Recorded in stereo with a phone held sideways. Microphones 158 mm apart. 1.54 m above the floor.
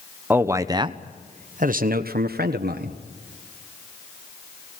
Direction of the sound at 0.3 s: 10° right (ahead or behind).